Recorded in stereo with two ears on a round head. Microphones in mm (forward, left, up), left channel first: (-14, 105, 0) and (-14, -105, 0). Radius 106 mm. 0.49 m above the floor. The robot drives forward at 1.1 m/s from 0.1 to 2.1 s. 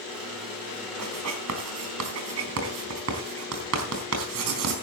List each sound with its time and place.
1.0 s writing: 75° right (ahead or behind), 4 m; by 4.7 s 70° right (ahead or behind), 4 m